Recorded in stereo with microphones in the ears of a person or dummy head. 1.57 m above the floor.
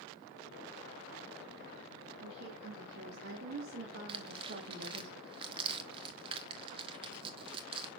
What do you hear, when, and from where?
2.2 s a woman speaking: 75° right (ahead or behind), 2.5 m; by 5.1 s 40° right (ahead or behind), 1.5 m
4.1 s tearing paper: 30° right (ahead or behind), 1.4 m